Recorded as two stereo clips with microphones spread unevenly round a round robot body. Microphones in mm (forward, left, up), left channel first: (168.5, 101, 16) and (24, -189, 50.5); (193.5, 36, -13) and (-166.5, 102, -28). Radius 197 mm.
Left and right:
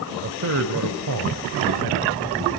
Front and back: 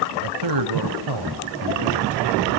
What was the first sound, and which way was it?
A man speaking, 175° right.